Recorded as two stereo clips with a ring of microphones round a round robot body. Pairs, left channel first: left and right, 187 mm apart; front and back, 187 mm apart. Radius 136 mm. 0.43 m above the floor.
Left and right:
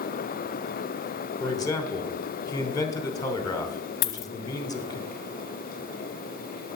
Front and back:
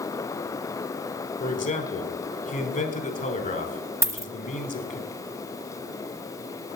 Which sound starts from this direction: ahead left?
A man speaking, at 1.4 s.